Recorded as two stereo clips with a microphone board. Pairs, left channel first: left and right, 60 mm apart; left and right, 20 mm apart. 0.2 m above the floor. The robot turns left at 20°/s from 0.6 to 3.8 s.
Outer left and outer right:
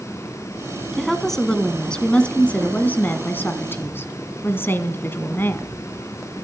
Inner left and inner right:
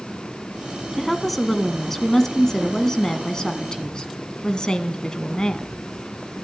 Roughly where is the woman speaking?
Behind.